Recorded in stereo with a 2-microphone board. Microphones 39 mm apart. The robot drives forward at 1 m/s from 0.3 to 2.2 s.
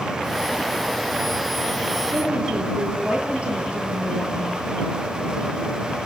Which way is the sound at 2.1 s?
35° right (ahead or behind).